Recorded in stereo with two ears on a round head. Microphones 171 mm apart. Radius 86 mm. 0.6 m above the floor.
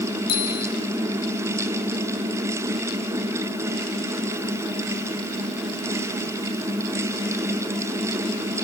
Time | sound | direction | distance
0.3 | a bicycle bell | 55° left (ahead or behind) | 6.5 m